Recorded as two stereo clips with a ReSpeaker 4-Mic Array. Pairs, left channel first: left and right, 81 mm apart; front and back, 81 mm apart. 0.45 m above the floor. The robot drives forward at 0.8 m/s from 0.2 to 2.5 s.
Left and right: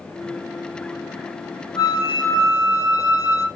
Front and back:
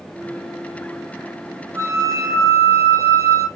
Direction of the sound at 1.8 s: 130° left.